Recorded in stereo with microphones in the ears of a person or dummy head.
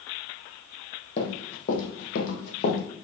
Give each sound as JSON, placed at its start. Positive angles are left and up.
{"t": 1.2, "sound": "running footsteps", "side_deg": 40, "distance_m": 3.0}